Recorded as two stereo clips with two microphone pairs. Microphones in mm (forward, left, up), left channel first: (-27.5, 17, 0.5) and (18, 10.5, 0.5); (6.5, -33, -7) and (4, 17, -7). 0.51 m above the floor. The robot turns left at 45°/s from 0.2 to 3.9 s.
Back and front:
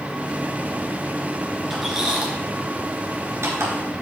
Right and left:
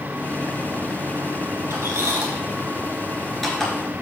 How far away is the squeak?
About 2.5 m.